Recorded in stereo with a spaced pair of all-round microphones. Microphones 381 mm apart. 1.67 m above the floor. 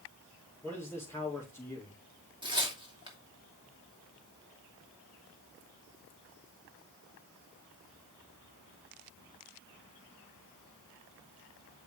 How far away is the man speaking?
About 5 m.